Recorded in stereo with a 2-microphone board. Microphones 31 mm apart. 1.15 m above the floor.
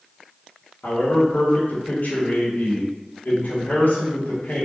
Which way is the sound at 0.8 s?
75° left (ahead or behind).